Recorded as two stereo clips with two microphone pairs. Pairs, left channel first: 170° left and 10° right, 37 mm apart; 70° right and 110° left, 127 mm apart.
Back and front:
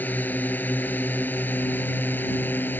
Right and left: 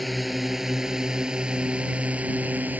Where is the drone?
160° right; by 2.8 s 175° right.